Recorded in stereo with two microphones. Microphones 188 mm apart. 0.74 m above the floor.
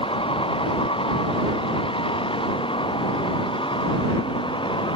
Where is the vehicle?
30° left (ahead or behind); by 5.0 s 25° left (ahead or behind).